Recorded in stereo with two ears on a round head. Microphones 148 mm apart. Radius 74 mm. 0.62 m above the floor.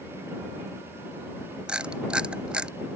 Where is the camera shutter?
5° right (ahead or behind).